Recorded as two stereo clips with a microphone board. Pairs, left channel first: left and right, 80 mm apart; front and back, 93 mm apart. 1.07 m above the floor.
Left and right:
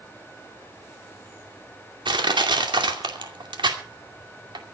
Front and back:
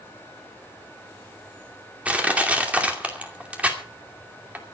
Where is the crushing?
105° right, 2.5 m.